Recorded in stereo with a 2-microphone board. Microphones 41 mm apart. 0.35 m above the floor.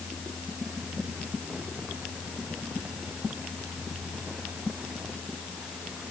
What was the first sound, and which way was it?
Only background noise.